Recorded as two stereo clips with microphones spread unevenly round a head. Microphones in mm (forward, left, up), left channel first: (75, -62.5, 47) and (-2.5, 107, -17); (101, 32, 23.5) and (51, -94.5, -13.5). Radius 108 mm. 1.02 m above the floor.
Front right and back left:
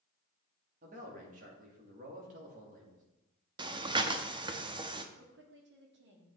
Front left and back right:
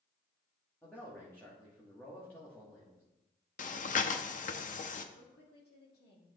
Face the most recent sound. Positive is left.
turn(degrees=105)